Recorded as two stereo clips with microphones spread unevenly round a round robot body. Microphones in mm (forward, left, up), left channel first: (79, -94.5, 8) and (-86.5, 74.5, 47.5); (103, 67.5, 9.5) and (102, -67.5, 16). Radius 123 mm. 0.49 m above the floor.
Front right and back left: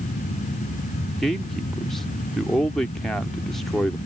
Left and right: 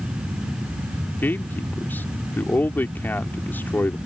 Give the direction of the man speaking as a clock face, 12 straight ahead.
11 o'clock.